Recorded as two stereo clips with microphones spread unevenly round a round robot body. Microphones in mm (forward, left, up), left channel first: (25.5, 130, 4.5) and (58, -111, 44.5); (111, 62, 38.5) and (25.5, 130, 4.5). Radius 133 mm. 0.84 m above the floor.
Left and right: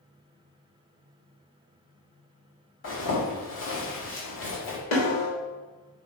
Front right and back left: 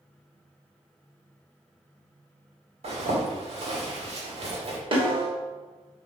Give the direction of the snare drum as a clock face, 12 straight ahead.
8 o'clock.